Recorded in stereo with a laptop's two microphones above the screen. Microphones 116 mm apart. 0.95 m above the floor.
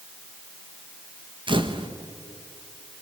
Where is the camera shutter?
45° right (ahead or behind), 1.2 m.